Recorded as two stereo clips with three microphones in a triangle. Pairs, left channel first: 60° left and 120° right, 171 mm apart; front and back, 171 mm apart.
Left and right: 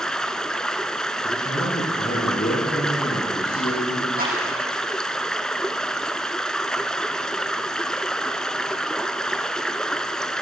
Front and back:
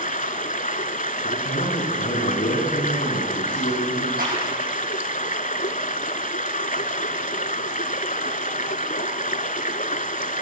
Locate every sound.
0.0 s running water: 25° right, 0.9 m
1.2 s a man speaking: 25° left, 8.5 m
4.2 s a clap: 150° right, 7 m